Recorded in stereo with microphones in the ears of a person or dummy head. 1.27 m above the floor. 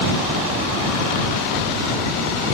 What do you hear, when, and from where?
Only background noise.